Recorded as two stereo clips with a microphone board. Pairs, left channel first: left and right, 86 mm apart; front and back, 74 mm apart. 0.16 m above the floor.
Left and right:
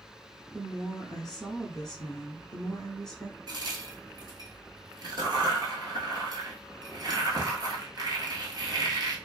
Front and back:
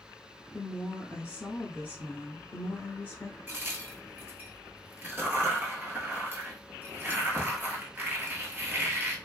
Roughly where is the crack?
Behind right.